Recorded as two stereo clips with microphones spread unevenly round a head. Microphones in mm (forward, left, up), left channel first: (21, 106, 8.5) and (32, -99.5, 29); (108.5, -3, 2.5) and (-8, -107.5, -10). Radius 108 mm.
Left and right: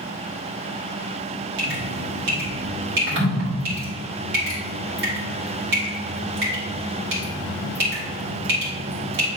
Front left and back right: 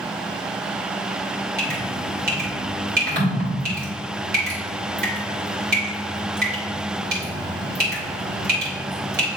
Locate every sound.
1.6 s dripping: 125° right, 3 m